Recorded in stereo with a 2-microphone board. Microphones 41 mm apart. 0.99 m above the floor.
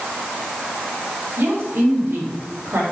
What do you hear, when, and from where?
1.4 s a woman speaking: 60° right (ahead or behind), 2.5 m; by 2.8 s 75° right (ahead or behind), 2.5 m